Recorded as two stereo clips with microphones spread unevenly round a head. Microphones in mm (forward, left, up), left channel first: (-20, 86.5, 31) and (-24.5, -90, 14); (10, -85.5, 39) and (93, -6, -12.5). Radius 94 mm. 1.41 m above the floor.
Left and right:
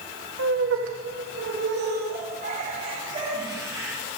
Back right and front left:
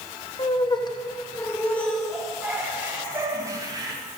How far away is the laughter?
About 2.5 m.